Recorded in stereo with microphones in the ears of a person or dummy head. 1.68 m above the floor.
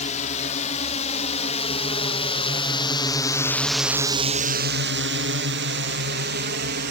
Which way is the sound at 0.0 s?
40° left (ahead or behind).